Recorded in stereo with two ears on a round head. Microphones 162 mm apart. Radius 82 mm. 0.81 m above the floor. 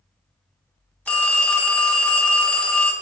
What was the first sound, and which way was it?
A phone ringing, 10° left (ahead or behind).